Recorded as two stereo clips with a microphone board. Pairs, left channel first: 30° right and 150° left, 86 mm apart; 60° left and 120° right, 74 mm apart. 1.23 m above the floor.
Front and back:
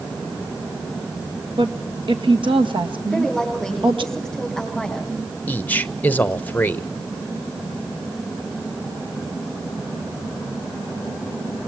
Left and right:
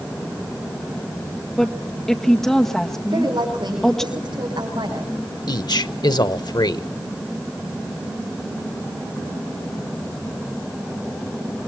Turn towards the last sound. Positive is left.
turn(degrees=40)